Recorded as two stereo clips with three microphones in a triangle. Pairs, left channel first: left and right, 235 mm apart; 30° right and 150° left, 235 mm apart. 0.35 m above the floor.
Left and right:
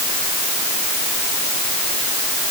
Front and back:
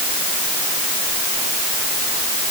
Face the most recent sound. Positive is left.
No sound to turn to.